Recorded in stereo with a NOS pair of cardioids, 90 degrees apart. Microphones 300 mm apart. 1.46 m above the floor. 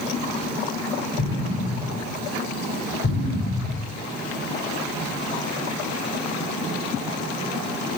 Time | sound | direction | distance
1.2 | an explosion | 50° left | 8 m